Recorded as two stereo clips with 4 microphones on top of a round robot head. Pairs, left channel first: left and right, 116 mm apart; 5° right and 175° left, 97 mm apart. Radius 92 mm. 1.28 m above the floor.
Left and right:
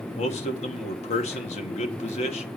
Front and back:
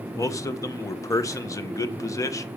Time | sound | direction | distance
0.1 | a man speaking | 55° left | 1.3 m